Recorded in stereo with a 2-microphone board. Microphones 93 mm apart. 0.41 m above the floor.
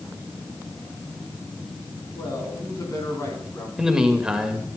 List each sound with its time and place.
2.1 s a man speaking: 40° left (ahead or behind), 4.5 m; by 3.7 s 35° left (ahead or behind), 3.5 m
3.8 s a man speaking: 5° right (ahead or behind), 1.8 m